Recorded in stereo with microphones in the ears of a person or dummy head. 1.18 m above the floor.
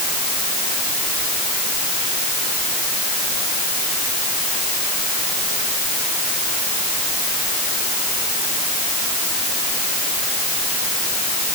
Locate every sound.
Only background noise.